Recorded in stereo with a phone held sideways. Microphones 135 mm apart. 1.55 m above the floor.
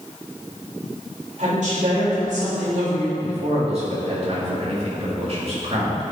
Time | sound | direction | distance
1.4 | a woman speaking | 65° right (ahead or behind) | 3 m
3.2 | a man speaking | 50° right (ahead or behind) | 3 m